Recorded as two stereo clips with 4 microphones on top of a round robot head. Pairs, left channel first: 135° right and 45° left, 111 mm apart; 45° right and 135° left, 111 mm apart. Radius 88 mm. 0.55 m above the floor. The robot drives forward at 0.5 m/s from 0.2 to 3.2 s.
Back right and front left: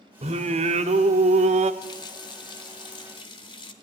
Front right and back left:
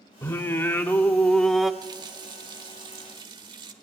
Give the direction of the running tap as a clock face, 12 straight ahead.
6 o'clock.